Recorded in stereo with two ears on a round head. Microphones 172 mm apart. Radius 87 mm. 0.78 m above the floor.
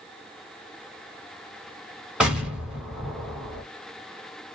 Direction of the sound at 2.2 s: 5° right (ahead or behind).